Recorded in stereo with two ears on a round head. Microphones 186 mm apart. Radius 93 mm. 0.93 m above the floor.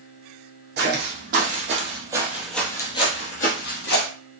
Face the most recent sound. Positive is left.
turn(degrees=55)  # may be behind; listen again after turning